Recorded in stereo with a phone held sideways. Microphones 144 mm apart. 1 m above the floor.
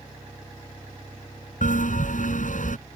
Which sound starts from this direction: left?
A bell, at 1.6 s.